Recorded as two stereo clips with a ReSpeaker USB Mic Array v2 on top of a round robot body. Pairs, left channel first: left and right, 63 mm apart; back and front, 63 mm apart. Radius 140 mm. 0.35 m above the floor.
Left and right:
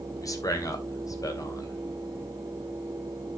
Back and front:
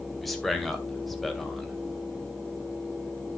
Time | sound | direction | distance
0.2 | a man speaking | 90° left | 3 m